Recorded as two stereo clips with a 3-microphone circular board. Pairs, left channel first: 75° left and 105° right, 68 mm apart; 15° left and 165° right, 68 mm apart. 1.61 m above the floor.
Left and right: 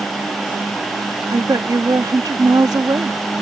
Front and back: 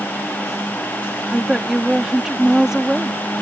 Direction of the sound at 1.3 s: 85° right.